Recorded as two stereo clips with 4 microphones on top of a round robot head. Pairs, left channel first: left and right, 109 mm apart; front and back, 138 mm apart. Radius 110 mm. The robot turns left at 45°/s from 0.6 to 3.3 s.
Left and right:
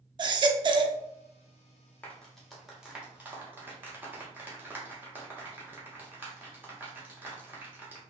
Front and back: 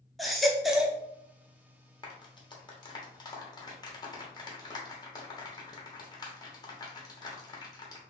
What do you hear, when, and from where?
0.2 s a baby crying: 90° right, 0.5 m; by 1.0 s 110° right, 0.5 m
2.0 s a clap: 25° left, 1.1 m; by 8.0 s 35° right, 1.1 m